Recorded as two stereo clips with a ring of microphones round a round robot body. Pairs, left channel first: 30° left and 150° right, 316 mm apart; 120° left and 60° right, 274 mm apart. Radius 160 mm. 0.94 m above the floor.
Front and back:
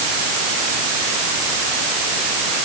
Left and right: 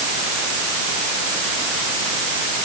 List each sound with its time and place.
Only background noise.